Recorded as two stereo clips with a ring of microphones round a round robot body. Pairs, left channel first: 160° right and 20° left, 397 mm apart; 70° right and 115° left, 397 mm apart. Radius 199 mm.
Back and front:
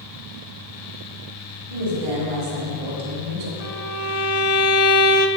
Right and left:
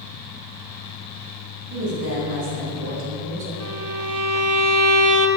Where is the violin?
150° left, 1.0 m.